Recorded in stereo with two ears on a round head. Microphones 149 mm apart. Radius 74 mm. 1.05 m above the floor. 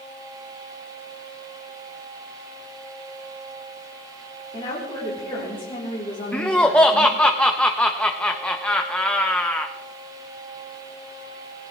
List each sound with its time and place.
4.5 s a woman speaking: 25° left (ahead or behind), 3.5 m
6.3 s laughter: 5° left (ahead or behind), 0.6 m